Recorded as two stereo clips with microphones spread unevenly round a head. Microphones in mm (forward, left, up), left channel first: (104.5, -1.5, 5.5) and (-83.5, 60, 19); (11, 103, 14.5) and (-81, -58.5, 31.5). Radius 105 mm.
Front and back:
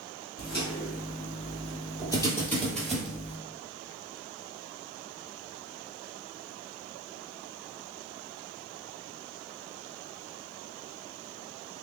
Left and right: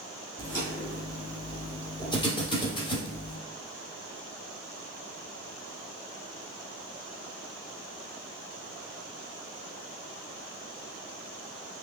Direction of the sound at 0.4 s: 20° right.